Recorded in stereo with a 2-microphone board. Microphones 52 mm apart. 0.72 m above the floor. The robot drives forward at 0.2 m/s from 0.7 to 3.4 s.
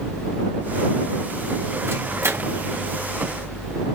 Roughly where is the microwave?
Right.